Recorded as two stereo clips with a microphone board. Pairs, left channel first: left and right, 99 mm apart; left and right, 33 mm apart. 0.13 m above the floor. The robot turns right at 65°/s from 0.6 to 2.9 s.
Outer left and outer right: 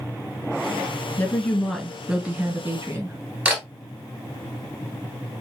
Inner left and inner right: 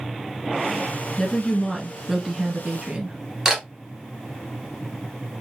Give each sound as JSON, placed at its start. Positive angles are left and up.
{"t": 1.2, "sound": "a woman speaking", "side_deg": 20, "distance_m": 1.5}
{"t": 3.5, "sound": "a camera shutter", "side_deg": -15, "distance_m": 1.8}